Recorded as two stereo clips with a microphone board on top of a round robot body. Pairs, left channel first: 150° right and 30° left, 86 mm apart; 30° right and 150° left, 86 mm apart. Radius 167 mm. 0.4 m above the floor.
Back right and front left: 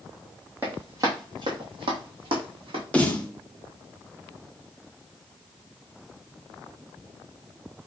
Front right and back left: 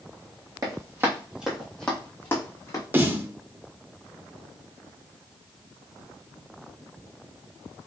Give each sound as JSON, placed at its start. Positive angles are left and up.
{"t": 0.6, "sound": "running footsteps", "azimuth_deg": 100, "distance_m": 1.0}
{"t": 2.9, "sound": "a snare drum", "azimuth_deg": 160, "distance_m": 1.0}